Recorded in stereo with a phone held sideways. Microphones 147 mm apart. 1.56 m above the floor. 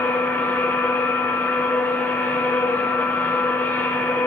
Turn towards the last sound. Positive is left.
turn(degrees=10)  # may be behind; listen again after turning